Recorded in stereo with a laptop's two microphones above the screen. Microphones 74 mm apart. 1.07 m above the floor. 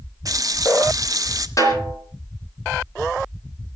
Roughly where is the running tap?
Right.